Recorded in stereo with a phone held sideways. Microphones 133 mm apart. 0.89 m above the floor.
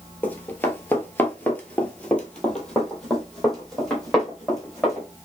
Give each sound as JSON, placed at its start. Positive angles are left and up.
{"t": 0.2, "sound": "running footsteps", "side_deg": 15, "distance_m": 1.1}